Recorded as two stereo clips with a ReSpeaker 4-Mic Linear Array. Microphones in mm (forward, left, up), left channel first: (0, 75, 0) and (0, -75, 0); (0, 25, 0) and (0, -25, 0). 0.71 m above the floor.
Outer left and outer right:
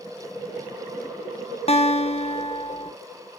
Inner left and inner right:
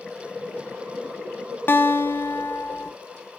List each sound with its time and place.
1.7 s a guitar: 40° left (ahead or behind), 1.4 m